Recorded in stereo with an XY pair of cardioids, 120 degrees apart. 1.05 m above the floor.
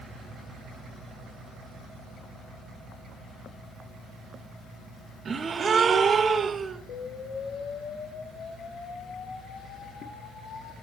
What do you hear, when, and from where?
5.2 s a gasp: 40° right, 1.3 m
6.9 s an explosion: 70° left, 4 m